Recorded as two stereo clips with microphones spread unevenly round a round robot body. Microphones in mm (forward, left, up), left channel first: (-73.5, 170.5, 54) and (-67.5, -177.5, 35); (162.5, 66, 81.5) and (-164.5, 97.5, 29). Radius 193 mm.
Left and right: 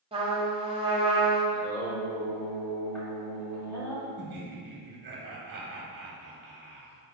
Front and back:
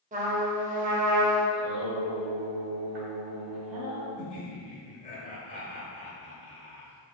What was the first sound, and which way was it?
A trumpet, 150° right.